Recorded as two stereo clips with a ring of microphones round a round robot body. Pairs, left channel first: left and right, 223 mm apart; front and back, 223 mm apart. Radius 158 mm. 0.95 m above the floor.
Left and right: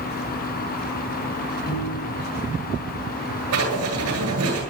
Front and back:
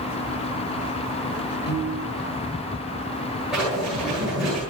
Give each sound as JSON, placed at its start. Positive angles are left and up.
{"t": 1.7, "sound": "a piano", "azimuth_deg": 45, "distance_m": 6.0}
{"t": 3.5, "sound": "writing", "azimuth_deg": -90, "distance_m": 9.5}